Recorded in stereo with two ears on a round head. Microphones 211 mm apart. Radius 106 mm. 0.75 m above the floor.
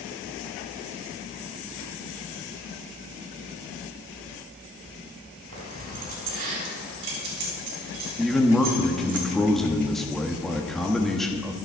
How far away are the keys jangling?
About 4.5 m.